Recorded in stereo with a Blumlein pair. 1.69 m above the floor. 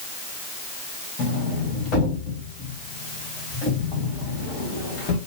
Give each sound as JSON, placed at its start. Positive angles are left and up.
{"t": 1.2, "sound": "a sliding door", "azimuth_deg": 30, "distance_m": 1.6}